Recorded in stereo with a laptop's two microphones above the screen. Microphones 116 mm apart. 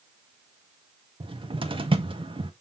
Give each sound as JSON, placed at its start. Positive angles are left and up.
{"t": 1.2, "sound": "a cupboard door", "side_deg": -45, "distance_m": 1.5}